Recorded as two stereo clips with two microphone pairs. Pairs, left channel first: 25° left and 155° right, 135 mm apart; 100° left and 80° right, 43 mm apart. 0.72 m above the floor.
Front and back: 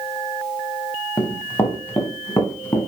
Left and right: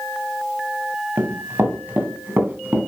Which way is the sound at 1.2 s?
55° right.